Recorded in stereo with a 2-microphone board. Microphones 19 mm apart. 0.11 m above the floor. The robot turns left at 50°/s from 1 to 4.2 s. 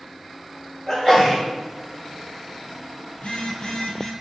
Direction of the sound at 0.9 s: 20° right (ahead or behind).